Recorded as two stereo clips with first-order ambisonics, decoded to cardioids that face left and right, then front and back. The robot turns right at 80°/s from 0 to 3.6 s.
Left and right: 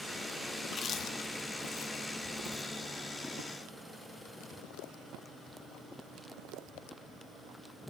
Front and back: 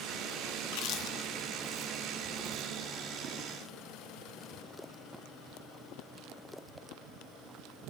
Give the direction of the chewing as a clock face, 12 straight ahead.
12 o'clock.